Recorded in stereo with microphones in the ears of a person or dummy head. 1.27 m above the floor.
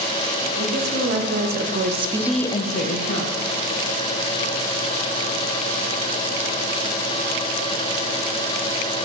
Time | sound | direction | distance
0.6 | a woman speaking | 70° right (ahead or behind) | 1.8 m